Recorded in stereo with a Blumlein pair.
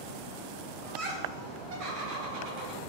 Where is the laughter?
30° right, 1.6 m; by 2.8 s 45° right, 2.5 m.